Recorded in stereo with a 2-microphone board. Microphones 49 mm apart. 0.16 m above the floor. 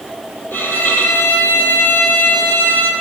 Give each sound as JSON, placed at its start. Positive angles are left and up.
{"t": 0.5, "sound": "a violin", "side_deg": 45, "distance_m": 1.6}